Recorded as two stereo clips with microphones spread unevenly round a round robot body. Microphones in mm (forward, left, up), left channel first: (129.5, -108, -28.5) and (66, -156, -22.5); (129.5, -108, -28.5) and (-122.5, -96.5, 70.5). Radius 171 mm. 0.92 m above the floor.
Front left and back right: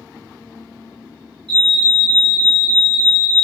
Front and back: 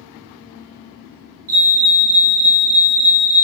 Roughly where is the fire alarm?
Behind right.